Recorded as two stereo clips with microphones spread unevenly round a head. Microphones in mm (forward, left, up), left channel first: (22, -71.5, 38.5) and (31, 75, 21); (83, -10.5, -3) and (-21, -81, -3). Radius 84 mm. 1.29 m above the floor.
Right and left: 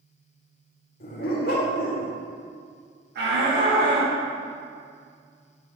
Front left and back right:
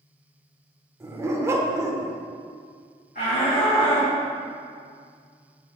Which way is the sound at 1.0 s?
80° right.